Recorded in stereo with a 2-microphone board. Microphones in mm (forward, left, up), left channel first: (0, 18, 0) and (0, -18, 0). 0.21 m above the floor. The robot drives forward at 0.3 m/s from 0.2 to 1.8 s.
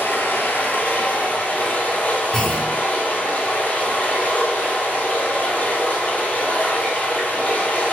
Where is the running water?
65° left (ahead or behind), 0.7 m; by 7.9 s 40° left (ahead or behind), 1.0 m.